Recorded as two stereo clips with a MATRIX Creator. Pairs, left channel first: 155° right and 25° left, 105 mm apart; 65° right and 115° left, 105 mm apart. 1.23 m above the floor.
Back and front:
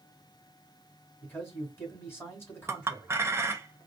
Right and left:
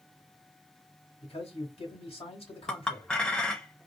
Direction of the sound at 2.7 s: 5° left.